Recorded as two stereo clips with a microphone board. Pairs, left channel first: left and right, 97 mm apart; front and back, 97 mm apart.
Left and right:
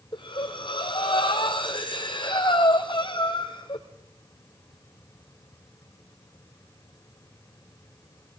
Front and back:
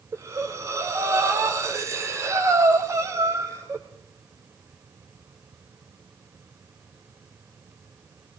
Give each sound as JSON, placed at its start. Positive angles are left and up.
{"t": 0.1, "sound": "breathing", "azimuth_deg": 120, "distance_m": 2.0}